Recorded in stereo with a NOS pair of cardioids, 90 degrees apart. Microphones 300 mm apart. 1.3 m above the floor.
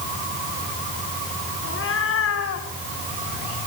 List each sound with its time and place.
1.6 s a cat meowing: 45° left, 3.5 m; by 2.7 s 60° left, 2.5 m